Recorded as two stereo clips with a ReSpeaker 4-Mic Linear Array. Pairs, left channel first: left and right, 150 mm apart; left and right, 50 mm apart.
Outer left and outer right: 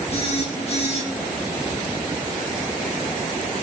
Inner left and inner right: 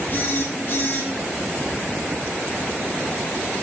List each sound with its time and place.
0.1 s a phone buzzing: 45° left (ahead or behind), 1.5 m